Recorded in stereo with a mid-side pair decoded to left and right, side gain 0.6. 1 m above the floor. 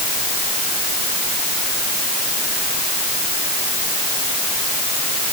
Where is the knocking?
No knocking in this recording.